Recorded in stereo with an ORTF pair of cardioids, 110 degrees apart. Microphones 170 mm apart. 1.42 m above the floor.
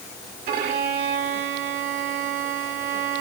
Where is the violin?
65° right, 1.8 m.